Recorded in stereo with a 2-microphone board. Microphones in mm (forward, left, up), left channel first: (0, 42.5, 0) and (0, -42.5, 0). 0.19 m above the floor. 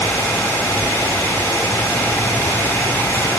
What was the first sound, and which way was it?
Only background noise.